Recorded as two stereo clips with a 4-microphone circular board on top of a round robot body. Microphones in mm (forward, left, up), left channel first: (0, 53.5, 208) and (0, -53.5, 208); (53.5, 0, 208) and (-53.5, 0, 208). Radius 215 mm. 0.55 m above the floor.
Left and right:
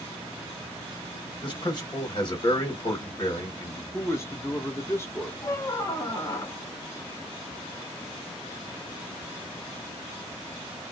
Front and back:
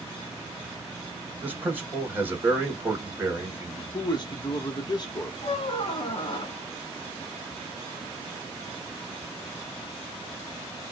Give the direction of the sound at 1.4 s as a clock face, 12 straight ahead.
8 o'clock.